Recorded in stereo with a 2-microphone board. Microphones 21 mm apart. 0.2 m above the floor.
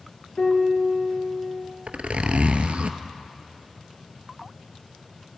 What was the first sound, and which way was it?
A piano, 65° left (ahead or behind).